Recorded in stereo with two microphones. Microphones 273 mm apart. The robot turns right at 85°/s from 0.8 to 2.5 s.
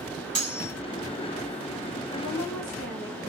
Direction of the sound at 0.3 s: 60° right (ahead or behind).